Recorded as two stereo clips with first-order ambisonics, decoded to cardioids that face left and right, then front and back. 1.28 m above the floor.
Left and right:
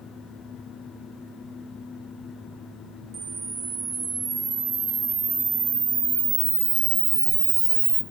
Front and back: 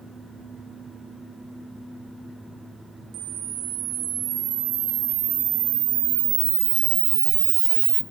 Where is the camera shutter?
155° right, 0.7 m.